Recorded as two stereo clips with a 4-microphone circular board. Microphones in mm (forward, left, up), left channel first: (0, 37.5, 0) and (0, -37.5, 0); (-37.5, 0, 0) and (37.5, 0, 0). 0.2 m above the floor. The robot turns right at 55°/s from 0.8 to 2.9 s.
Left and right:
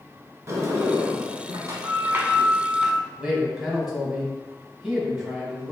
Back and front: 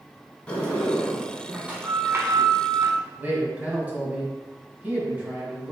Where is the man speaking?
15° right, 1.1 m.